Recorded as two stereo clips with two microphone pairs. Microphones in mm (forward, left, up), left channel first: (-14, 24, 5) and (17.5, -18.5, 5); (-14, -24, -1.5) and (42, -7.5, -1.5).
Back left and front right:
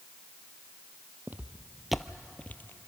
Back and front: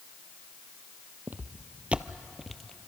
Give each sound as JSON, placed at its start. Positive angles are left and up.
{"t": 1.3, "sound": "footsteps", "azimuth_deg": -20, "distance_m": 0.8}